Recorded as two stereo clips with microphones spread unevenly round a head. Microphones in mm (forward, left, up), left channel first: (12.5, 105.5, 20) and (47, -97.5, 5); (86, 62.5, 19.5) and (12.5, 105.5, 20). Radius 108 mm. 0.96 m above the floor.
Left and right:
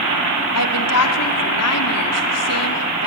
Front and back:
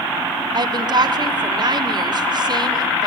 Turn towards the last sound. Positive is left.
turn(degrees=115)